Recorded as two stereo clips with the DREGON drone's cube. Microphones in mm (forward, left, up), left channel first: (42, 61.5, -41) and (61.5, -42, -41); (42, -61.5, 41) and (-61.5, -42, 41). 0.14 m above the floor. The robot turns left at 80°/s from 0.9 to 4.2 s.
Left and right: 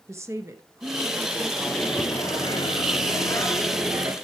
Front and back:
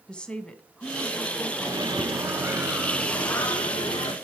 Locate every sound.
0.1 s a woman speaking: 80° right, 1.2 m; by 1.5 s 130° right, 1.2 m
1.6 s a microwave: 175° right, 1.5 m; by 4.1 s 15° right, 1.5 m